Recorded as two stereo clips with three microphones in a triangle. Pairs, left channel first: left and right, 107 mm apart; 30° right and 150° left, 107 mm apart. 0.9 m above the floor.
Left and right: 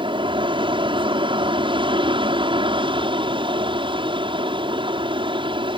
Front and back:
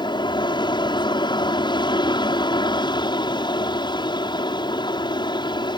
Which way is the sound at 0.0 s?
65° right.